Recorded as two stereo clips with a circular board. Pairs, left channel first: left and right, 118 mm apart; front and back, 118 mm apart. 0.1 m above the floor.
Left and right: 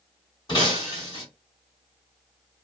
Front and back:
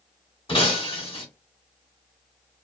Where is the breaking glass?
40° left, 1.6 m.